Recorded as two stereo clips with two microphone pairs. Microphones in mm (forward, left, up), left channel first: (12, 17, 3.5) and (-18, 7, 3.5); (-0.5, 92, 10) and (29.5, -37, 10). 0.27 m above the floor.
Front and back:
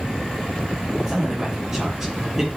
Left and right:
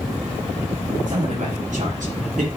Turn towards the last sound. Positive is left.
turn(degrees=-85)